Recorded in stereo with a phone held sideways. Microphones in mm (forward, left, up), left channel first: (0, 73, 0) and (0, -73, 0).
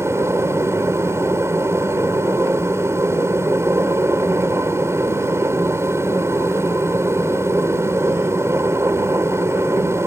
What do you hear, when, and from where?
0.0 s a machine running: 20° right (ahead or behind)